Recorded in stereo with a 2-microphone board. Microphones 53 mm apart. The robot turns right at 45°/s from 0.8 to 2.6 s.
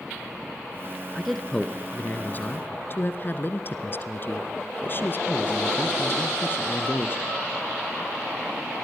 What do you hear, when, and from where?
1.1 s a man speaking: straight ahead, 1.4 m; by 7.2 s 65° left, 1.4 m